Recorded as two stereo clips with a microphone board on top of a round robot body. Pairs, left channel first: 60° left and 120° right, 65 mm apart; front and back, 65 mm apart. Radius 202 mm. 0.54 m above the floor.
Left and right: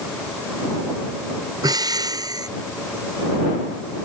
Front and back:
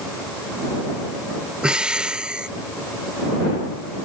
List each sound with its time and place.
1.6 s breathing: 100° right